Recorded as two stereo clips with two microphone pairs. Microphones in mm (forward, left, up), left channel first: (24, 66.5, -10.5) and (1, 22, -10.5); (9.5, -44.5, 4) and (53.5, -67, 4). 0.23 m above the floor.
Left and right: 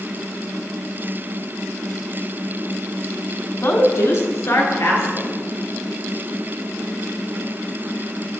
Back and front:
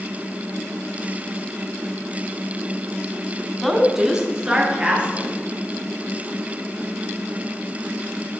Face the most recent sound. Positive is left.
turn(degrees=30)